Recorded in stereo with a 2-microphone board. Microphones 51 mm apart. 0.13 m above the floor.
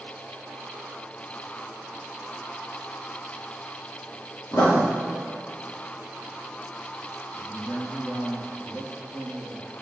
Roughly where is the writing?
Left.